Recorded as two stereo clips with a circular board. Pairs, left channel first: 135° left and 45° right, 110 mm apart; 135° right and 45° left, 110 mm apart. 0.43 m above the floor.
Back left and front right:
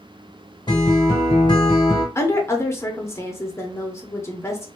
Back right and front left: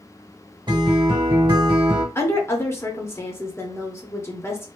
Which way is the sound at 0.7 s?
90° left.